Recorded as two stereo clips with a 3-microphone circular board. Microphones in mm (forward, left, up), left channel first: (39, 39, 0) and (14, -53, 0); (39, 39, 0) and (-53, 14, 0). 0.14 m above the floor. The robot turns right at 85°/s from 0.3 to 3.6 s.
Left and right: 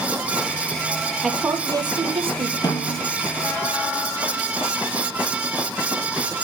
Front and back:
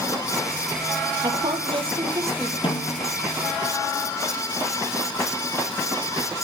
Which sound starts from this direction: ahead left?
A snare drum, at 2.6 s.